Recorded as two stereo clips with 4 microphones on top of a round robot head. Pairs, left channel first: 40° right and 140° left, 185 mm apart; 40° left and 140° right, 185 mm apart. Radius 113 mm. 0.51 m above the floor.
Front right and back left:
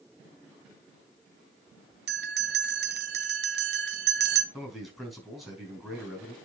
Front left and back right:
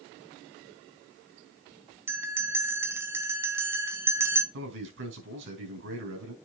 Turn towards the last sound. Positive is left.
turn(degrees=-130)